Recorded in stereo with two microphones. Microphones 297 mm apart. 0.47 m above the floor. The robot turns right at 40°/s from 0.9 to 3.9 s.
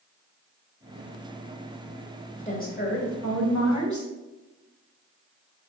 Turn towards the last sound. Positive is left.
turn(degrees=85)